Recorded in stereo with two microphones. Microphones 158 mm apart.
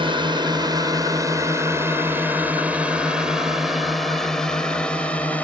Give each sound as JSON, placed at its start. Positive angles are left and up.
{"t": 0.0, "sound": "a drone", "side_deg": -35}